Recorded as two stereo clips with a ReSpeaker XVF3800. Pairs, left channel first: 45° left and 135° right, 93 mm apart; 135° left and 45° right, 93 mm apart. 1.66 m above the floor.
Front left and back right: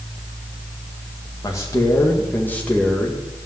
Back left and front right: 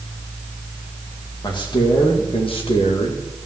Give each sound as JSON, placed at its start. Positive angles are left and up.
{"t": 1.4, "sound": "a man speaking", "azimuth_deg": 100, "distance_m": 2.5}